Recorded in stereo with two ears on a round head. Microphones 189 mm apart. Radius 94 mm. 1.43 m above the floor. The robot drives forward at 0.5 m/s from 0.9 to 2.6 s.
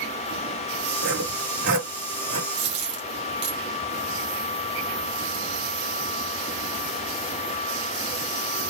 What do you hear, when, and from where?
1.0 s sawing: 60° right (ahead or behind), 2.5 m; by 2.4 s 70° right (ahead or behind), 2.5 m
2.5 s a dropped coin: 55° right (ahead or behind), 1.5 m